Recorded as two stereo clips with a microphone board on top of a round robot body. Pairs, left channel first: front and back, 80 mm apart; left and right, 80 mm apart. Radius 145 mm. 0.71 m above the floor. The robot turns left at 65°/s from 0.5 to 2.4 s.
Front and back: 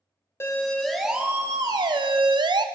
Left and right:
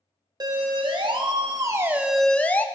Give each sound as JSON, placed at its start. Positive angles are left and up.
{"t": 0.4, "sound": "a siren", "azimuth_deg": -60, "distance_m": 2.5}